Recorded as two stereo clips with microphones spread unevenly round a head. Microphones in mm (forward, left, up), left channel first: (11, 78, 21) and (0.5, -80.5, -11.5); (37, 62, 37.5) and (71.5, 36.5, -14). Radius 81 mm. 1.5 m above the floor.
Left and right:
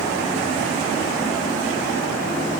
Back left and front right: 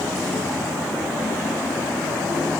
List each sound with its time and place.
Only background noise.